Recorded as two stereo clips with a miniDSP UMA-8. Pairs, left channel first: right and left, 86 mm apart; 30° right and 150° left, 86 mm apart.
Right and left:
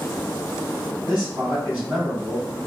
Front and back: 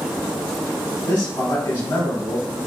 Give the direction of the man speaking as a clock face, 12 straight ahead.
11 o'clock.